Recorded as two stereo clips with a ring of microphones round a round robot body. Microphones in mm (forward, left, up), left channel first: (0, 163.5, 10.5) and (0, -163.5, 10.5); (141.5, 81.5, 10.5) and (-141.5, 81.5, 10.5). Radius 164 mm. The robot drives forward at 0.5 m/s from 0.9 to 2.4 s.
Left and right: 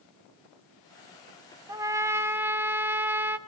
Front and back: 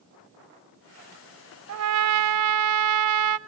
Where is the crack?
No crack in this recording.